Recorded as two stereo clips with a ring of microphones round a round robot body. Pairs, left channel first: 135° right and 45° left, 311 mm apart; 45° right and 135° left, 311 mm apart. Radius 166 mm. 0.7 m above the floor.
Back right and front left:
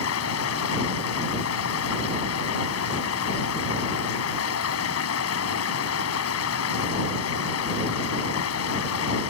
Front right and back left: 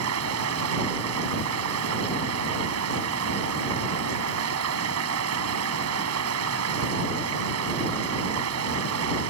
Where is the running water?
Straight behind.